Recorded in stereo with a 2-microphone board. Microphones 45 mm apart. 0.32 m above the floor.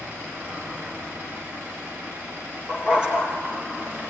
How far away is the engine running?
About 9 m.